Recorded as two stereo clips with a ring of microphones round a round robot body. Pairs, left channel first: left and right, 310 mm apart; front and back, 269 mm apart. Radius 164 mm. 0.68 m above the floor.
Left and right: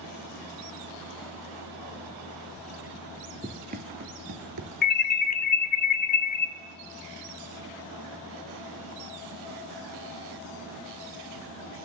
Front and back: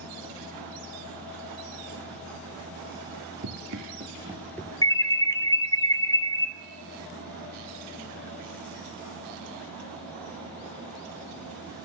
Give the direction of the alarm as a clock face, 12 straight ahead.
10 o'clock.